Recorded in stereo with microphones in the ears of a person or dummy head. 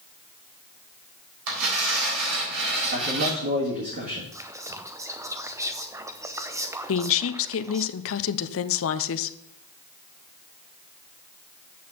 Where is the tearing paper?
80° right, 3.5 m.